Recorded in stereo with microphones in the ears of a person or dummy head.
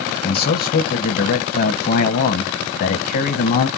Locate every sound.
0.2 s a man speaking: 50° left (ahead or behind), 0.9 m